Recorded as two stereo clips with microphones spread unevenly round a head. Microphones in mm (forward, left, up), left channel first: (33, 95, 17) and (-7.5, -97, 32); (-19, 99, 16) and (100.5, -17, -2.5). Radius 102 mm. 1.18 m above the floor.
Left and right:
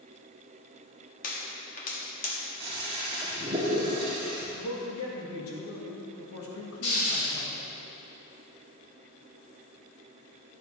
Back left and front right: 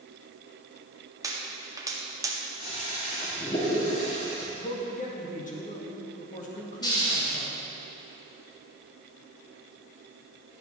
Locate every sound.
1.2 s a pop: 25° left, 1.6 m
2.6 s a toilet flushing: 165° right, 2.5 m
4.5 s a man speaking: 90° left, 1.8 m
6.8 s a hiss: 70° left, 3.5 m